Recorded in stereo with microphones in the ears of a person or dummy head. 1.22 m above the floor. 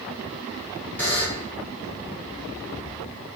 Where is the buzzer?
5° left (ahead or behind), 0.9 m.